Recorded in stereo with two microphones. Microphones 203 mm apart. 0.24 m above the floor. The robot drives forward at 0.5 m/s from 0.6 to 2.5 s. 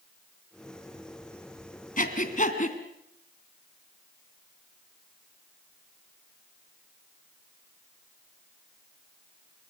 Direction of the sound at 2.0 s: 40° left (ahead or behind).